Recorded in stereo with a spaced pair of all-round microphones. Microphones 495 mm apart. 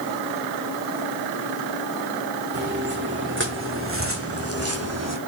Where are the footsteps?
20° right (ahead or behind), 6 m; by 5.2 s 30° right (ahead or behind), 3 m.